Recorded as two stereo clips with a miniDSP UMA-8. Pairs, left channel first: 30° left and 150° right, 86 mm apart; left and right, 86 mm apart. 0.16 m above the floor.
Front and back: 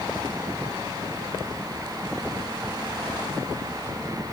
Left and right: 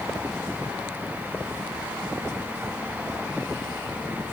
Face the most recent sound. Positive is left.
No sound to turn to.